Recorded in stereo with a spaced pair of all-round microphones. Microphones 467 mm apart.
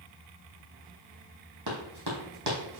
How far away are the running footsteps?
About 3 m.